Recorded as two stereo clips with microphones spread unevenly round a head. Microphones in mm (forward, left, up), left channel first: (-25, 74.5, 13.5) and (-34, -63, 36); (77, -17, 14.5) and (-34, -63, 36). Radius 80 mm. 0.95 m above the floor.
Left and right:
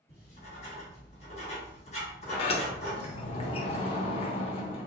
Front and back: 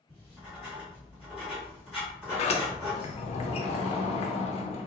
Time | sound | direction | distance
0.1 | writing | 105° left | 1.8 m
2.3 | a sliding door | 45° left | 0.5 m